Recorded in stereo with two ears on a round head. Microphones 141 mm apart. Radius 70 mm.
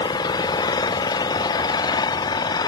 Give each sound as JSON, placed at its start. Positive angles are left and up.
{"t": 0.0, "sound": "an engine running", "side_deg": 25}